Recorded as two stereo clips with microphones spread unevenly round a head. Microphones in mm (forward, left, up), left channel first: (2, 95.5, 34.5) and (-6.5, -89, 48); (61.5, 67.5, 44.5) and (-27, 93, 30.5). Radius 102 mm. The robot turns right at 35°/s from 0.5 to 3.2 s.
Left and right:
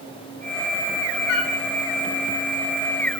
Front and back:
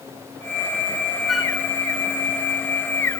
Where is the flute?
70° left, 1.6 m; by 1.5 s 80° left, 1.6 m.